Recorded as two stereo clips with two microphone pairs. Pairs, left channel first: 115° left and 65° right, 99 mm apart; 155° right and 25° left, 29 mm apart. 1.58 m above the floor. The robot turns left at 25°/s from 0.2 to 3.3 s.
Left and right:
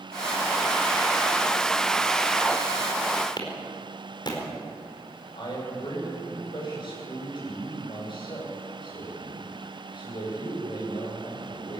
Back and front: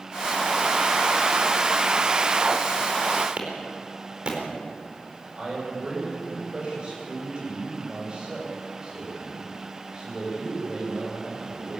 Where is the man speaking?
80° left, 9 m.